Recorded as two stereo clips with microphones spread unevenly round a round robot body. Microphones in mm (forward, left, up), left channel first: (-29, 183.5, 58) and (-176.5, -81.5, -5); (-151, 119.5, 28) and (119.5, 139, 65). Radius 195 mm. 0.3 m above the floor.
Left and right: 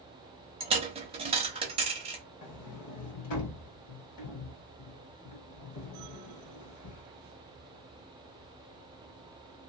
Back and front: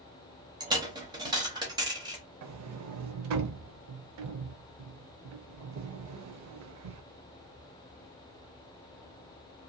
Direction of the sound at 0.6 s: 75° right.